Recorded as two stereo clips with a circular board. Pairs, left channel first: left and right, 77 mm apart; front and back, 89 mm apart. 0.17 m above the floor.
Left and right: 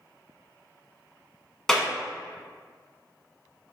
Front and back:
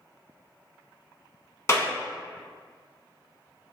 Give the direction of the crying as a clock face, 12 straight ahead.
No crying in this recording.